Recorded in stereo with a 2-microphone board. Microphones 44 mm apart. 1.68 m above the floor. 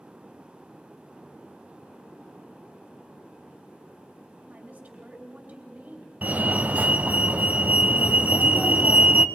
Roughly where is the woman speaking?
Right.